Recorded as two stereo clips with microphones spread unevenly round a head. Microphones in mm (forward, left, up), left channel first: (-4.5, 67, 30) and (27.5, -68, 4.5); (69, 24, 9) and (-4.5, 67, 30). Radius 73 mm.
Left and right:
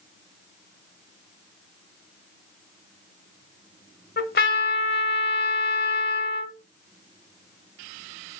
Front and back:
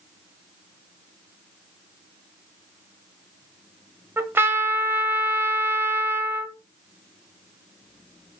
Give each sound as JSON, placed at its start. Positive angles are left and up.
{"t": 4.2, "sound": "a trumpet", "azimuth_deg": 95, "distance_m": 1.8}